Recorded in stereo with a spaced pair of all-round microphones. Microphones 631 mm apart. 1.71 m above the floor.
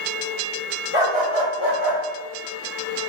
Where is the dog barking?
55° left (ahead or behind), 2.5 m; by 2.0 s 35° left (ahead or behind), 3 m.